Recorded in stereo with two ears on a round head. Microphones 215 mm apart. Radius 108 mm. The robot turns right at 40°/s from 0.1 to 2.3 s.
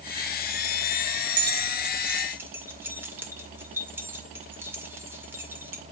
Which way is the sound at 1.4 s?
45° right (ahead or behind).